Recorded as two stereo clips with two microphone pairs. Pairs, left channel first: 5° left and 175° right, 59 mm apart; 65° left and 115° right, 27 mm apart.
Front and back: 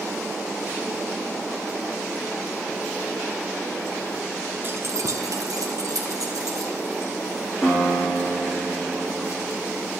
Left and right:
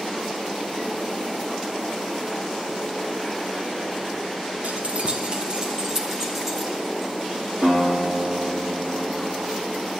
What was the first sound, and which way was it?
Keys jangling, 125° right.